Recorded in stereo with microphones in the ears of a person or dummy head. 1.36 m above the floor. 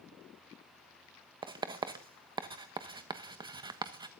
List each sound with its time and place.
1.4 s writing: 25° right (ahead or behind), 1.2 m